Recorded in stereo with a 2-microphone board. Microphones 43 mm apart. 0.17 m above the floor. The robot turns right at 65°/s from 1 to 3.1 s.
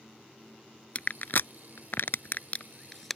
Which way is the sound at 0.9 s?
35° left (ahead or behind).